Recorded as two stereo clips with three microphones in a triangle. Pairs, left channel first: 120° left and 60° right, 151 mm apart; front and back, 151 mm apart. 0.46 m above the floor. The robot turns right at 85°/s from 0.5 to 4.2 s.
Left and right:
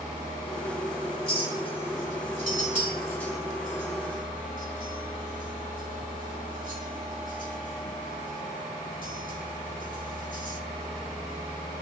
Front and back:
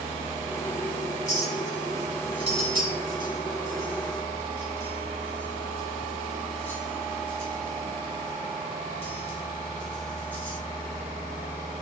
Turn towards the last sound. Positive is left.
turn(degrees=-75)